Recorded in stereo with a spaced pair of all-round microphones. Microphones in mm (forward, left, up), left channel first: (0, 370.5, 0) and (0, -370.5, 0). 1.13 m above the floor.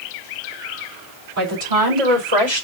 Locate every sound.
1.4 s a woman speaking: 55° right (ahead or behind), 4 m; by 2.6 s 40° right (ahead or behind), 3.5 m